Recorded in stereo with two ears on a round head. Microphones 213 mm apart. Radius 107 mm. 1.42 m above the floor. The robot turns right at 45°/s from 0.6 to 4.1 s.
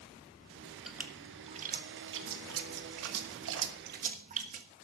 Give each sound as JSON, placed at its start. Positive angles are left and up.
{"t": 0.9, "sound": "a splash", "side_deg": 0, "distance_m": 1.3}